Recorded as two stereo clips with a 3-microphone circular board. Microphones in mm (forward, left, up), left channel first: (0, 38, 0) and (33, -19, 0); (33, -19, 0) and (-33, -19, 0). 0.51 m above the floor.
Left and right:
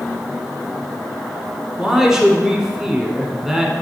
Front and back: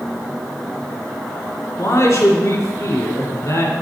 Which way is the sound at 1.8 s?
20° left.